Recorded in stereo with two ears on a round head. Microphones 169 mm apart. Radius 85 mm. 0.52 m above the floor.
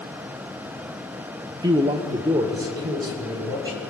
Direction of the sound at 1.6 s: 20° right (ahead or behind).